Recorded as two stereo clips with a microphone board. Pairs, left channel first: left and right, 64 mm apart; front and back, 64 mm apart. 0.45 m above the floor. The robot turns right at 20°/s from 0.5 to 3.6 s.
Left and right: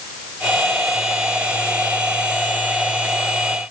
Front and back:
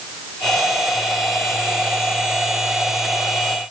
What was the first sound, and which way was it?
Only background noise.